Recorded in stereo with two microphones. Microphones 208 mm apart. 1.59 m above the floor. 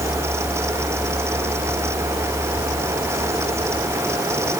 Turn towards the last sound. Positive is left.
No sound to turn to.